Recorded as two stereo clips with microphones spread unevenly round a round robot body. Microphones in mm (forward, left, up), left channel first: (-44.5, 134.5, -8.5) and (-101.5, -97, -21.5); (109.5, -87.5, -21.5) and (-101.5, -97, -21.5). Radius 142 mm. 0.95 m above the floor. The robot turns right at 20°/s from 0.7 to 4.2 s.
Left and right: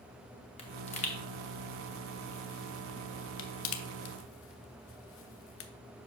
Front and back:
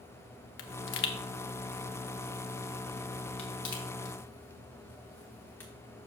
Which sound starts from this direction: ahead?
A pop, at 0.6 s.